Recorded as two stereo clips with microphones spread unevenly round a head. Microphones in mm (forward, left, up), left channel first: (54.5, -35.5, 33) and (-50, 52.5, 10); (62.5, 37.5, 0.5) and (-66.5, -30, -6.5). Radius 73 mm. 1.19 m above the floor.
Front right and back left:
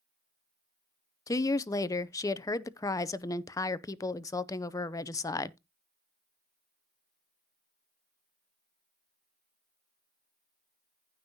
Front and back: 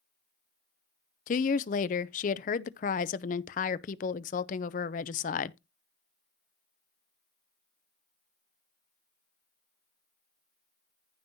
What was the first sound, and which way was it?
A woman speaking, 30° left.